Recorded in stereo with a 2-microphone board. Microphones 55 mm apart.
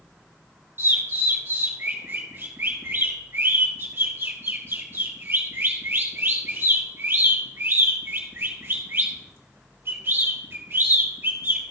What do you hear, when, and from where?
0.8 s a bird: 45° right (ahead or behind), 2.5 m